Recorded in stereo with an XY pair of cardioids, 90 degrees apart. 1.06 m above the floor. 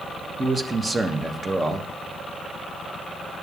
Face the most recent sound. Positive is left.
turn(degrees=-30)